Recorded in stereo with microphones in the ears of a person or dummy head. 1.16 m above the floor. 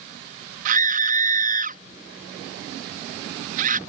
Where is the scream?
55° right (ahead or behind).